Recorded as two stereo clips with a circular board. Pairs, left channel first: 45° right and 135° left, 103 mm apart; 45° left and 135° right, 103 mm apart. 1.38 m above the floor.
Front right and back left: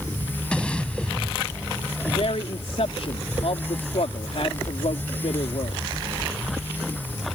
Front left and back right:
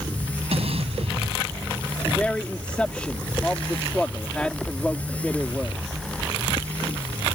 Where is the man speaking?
35° right.